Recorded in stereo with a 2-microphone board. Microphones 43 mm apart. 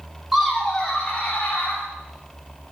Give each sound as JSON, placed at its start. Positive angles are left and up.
{"t": 0.3, "sound": "laughter", "side_deg": -10, "distance_m": 0.9}